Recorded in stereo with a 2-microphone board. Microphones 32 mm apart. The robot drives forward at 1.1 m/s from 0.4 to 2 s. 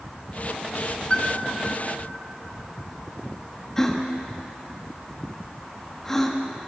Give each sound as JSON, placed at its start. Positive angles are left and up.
{"t": 1.1, "sound": "a piano", "side_deg": 35, "distance_m": 1.7}
{"t": 3.8, "sound": "a gasp", "side_deg": 15, "distance_m": 1.5}